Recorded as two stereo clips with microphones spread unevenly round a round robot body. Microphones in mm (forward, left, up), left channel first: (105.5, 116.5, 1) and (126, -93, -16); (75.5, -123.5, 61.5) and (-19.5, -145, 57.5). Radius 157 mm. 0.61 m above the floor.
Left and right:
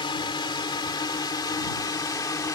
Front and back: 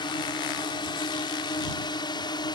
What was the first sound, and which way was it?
A drone, 35° left.